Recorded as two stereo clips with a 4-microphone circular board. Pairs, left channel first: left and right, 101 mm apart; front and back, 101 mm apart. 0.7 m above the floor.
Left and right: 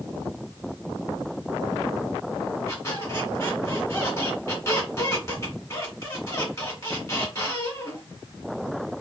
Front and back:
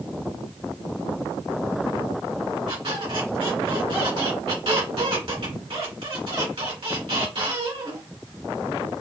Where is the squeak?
150° left, 2.5 m.